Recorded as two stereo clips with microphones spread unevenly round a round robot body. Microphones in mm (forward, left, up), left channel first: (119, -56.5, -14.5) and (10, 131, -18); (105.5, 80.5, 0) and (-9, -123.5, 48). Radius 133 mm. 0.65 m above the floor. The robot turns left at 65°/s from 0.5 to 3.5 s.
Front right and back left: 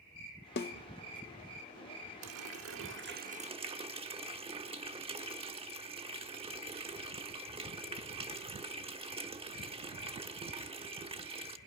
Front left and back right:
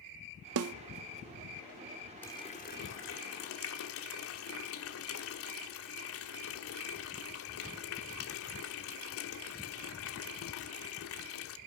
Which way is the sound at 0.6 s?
105° right.